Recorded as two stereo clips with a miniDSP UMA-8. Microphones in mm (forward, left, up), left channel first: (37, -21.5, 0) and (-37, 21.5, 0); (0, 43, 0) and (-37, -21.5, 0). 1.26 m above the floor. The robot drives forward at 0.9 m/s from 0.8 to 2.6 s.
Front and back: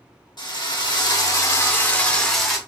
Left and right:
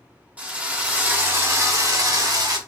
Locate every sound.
0.4 s a drill: 55° right, 1.6 m; by 2.6 s 125° right, 1.5 m